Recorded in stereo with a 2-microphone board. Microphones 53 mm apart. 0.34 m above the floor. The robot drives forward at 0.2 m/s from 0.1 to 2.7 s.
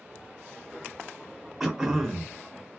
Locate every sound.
1.6 s throat clearing: 5° right (ahead or behind), 0.6 m